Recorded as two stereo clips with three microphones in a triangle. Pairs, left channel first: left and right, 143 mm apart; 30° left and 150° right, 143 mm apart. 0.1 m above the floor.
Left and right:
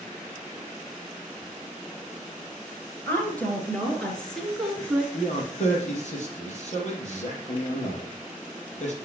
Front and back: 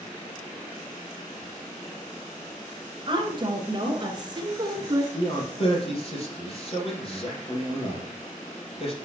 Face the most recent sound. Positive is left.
turn(degrees=70)